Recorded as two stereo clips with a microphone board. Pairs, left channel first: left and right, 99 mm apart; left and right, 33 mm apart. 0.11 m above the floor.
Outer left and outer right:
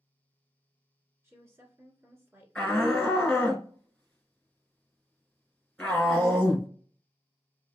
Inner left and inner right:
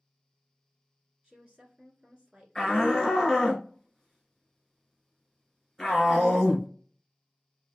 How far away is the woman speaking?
About 1.5 m.